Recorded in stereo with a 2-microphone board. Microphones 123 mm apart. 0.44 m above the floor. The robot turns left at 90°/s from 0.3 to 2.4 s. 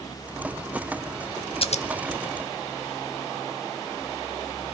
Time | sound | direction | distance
1.6 | scissors | 50° left (ahead or behind) | 0.6 m